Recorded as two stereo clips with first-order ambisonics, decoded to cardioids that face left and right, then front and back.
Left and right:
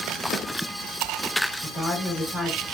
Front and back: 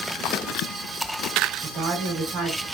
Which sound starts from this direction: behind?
A woman speaking, at 1.6 s.